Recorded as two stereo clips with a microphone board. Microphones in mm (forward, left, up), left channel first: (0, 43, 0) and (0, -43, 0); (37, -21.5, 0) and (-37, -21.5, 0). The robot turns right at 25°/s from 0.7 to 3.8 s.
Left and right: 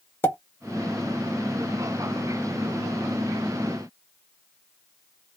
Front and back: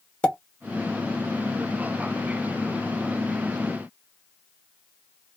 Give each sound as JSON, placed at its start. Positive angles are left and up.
{"t": 0.2, "sound": "a pop", "azimuth_deg": 60, "distance_m": 0.8}